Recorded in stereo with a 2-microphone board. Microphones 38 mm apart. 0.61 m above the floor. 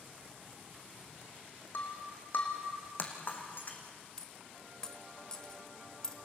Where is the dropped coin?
20° left (ahead or behind), 1.3 m.